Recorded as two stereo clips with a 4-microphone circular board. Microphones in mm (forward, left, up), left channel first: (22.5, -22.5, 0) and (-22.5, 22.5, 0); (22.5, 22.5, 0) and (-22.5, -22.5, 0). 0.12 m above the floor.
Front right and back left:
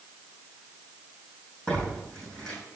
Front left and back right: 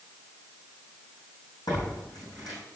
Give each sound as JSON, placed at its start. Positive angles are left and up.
{"t": 1.7, "sound": "tearing paper", "azimuth_deg": 35, "distance_m": 5.0}